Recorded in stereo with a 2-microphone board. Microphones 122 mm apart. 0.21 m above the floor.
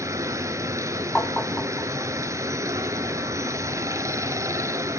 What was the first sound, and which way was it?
Running water, 25° right (ahead or behind).